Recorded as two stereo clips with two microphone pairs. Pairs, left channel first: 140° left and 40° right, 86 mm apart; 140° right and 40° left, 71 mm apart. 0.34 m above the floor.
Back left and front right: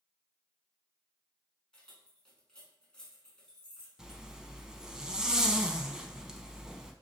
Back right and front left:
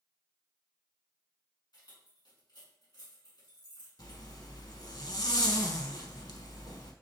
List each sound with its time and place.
1.7 s keys jangling: 140° right, 1.9 m
4.0 s a zipper: 125° right, 0.7 m